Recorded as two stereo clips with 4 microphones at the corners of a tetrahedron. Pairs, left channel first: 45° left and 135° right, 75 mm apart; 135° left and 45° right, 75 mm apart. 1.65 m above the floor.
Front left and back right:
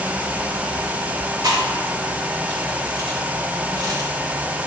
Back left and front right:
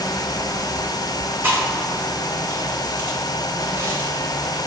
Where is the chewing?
105° right, 2 m.